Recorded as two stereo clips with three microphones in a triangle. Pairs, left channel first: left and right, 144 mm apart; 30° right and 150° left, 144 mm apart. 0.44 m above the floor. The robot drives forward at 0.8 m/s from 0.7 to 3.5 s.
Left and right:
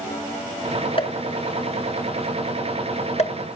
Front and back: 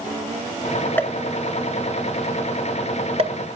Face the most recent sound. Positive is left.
turn(degrees=125)